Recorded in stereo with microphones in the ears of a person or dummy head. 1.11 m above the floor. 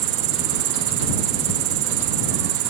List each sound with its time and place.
0.0 s an insect: 80° right